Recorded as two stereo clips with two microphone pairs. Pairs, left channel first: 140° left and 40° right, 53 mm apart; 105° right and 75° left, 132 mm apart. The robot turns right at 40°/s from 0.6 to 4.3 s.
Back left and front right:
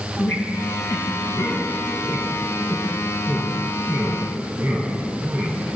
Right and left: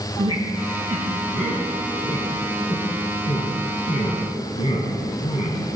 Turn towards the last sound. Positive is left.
turn(degrees=-85)